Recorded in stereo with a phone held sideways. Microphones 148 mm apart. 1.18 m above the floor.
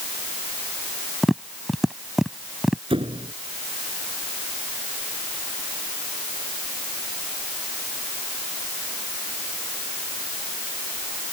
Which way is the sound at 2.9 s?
40° right (ahead or behind).